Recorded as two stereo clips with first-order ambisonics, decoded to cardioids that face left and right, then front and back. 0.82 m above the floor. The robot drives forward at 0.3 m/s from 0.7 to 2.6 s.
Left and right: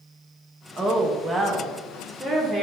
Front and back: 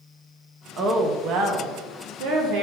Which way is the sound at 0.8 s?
160° right.